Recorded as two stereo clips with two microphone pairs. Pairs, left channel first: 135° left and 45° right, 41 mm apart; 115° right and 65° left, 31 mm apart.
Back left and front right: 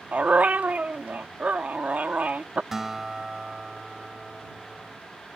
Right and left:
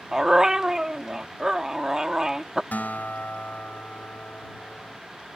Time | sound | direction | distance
0.1 | a dog barking | 5° right | ?
2.7 | a guitar | 125° right | ?